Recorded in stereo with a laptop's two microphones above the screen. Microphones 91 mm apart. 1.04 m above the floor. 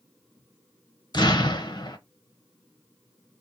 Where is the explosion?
45° left (ahead or behind), 0.9 m.